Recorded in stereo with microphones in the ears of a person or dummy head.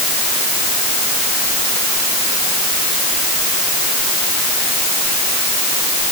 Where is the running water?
I don't hear running water.